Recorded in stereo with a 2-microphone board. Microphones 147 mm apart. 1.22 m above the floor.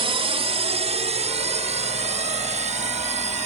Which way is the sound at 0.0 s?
40° right (ahead or behind).